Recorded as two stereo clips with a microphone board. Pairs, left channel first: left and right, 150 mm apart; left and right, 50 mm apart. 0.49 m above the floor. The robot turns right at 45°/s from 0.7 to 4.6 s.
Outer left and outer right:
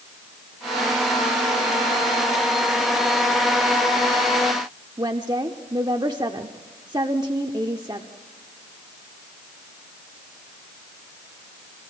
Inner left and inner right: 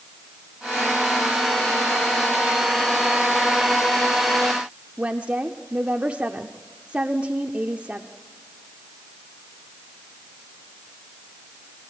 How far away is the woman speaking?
About 0.9 m.